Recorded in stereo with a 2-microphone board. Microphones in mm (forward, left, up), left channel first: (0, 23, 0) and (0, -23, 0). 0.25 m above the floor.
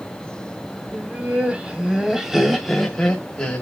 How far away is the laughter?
About 1.8 m.